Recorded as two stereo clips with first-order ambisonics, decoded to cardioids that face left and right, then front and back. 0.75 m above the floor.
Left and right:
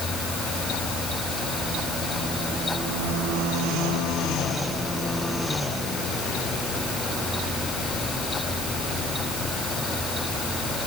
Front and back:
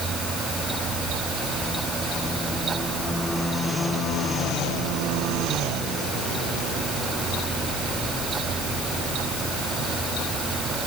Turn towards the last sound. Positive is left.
No sound to turn to.